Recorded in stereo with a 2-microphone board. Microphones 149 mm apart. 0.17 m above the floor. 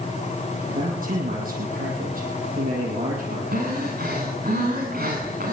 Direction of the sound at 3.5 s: 85° right.